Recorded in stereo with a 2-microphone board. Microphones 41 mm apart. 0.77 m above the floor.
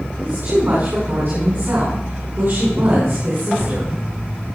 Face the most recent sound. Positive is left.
turn(degrees=-55)  # may be behind; listen again after turning